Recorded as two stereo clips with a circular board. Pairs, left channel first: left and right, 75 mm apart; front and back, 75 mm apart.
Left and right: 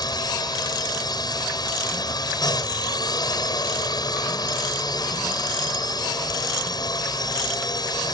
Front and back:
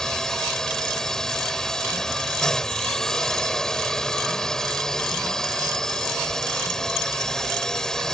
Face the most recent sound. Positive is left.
turn(degrees=80)